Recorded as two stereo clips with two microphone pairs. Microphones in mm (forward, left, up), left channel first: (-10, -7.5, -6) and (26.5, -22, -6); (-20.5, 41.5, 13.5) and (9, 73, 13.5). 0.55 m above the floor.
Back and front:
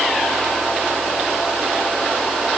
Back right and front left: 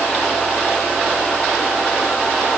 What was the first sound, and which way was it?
Only background noise.